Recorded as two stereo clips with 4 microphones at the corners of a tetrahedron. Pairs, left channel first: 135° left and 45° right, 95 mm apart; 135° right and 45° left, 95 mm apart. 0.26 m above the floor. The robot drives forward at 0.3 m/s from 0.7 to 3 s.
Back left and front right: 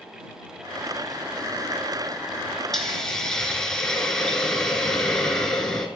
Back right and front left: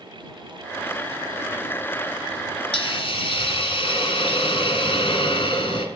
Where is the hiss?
140° right, 1.2 m.